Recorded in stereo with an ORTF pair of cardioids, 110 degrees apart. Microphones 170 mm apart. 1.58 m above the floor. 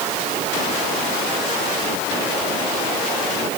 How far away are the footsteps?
No footsteps in this recording.